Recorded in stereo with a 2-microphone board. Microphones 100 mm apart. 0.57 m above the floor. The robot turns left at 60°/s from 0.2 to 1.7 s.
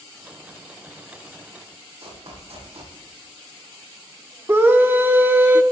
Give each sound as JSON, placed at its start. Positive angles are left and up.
{"t": 2.0, "sound": "running footsteps", "side_deg": -70, "distance_m": 8.0}
{"t": 4.5, "sound": "a scream", "side_deg": -25, "distance_m": 0.7}